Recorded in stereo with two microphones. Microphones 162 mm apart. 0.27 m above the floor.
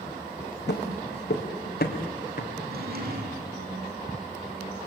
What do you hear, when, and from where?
0.7 s footsteps: 80° left, 2.5 m; by 2.5 s 55° left (ahead or behind), 4 m
2.6 s a drawer: 60° right (ahead or behind), 5 m